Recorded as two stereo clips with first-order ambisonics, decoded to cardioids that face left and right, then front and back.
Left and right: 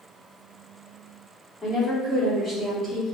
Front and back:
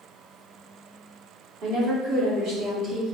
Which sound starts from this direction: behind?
A woman speaking, at 1.6 s.